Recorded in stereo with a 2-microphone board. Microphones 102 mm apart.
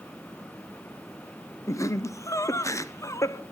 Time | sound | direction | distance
1.7 | laughter | 30° left (ahead or behind) | 0.7 m